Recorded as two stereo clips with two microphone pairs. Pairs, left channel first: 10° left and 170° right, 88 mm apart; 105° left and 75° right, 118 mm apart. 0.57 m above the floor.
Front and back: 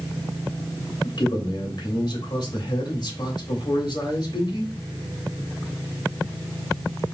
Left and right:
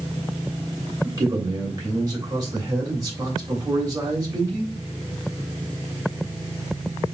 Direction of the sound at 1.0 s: 20° right.